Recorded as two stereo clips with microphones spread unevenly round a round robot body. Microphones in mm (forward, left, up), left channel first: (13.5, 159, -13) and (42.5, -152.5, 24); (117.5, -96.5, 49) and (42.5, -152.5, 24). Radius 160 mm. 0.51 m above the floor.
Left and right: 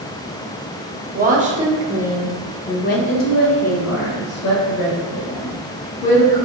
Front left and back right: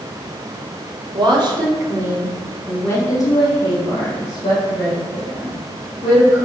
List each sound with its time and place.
1.1 s a woman speaking: 150° right, 1.4 m; by 6.4 s 60° left, 3 m